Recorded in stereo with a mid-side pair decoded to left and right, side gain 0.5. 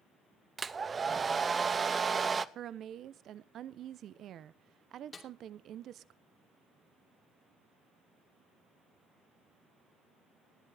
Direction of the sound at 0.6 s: 35° right.